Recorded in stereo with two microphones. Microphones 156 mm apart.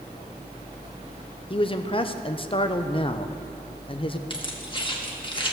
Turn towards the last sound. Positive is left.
turn(degrees=30)  # may be behind; listen again after turning